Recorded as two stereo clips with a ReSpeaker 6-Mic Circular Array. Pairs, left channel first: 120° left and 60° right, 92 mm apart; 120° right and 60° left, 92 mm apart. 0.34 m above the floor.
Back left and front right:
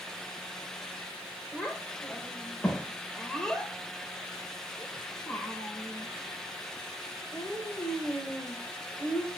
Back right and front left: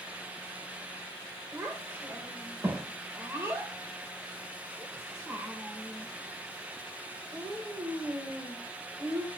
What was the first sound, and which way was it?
A child speaking, 40° left.